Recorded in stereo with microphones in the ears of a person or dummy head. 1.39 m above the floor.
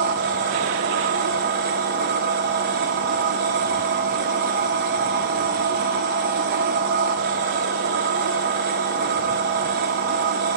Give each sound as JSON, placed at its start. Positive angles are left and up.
{"t": 0.0, "sound": "a machine running", "side_deg": -50, "distance_m": 0.8}